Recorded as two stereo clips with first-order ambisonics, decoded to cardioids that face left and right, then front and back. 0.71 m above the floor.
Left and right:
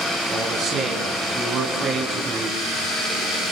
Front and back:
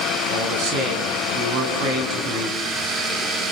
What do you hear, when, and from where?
0.3 s a man speaking: 150° right, 6.5 m; by 2.6 s 155° right, 5 m